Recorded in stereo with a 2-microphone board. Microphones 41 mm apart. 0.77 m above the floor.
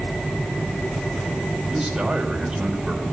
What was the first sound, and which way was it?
A man speaking, 15° right (ahead or behind).